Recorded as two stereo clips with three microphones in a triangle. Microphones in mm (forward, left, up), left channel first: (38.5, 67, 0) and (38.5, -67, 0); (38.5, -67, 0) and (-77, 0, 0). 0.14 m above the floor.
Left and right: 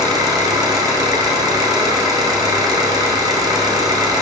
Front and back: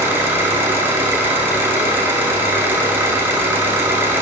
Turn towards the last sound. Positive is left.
turn(degrees=-140)